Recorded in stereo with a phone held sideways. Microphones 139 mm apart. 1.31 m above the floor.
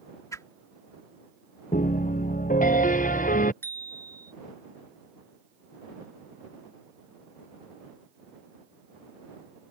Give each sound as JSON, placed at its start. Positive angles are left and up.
{"t": 0.3, "sound": "a whoosh", "side_deg": 20}
{"t": 1.7, "sound": "a piano", "side_deg": 75}
{"t": 3.6, "sound": "a bicycle bell", "side_deg": 15}